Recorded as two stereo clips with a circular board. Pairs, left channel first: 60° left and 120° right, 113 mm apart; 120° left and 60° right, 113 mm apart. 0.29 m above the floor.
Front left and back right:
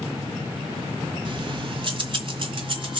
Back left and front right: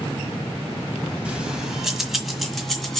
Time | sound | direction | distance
1.2 | keys jangling | 140° right | 1.4 m